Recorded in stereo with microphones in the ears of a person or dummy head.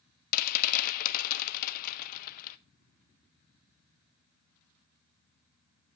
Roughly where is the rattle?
Left.